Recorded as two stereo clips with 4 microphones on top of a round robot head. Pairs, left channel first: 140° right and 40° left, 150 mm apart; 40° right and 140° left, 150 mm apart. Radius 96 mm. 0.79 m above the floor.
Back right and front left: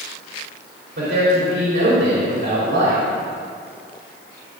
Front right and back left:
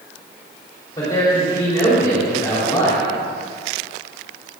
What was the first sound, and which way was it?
A man speaking, 30° left.